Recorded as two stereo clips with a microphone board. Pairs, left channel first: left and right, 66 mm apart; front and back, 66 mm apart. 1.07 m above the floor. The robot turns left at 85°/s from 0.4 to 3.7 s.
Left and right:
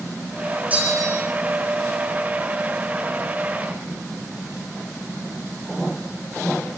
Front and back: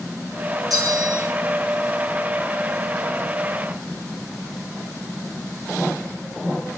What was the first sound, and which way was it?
A bell, 155° right.